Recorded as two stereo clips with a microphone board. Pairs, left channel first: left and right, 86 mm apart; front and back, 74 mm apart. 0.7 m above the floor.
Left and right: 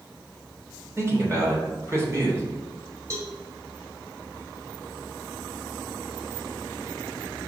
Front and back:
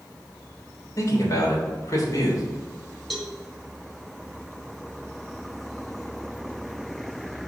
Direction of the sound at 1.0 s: 35° right.